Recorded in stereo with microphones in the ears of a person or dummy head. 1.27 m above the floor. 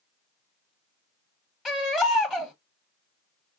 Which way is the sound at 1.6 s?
5° left (ahead or behind).